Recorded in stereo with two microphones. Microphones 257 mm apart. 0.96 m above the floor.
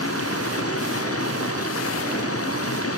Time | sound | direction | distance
0.0 | running water | 60° left (ahead or behind) | ?